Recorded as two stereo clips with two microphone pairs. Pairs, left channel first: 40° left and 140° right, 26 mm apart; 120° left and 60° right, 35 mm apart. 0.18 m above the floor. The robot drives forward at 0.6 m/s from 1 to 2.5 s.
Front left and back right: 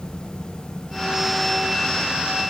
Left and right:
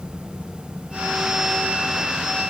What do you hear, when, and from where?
Only background noise.